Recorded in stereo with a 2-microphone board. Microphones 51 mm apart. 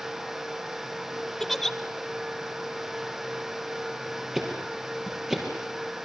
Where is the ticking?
10° right (ahead or behind), 5.5 m.